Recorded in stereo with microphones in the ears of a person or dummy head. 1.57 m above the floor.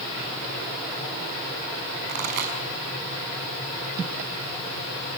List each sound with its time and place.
2.1 s a pop: 60° right (ahead or behind), 6 m